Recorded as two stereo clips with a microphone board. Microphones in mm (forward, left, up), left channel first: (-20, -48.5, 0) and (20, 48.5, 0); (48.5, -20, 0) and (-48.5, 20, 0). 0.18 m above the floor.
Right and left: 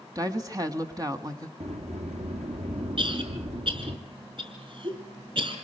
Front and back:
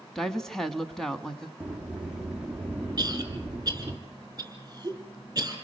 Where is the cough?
100° left, 5 m.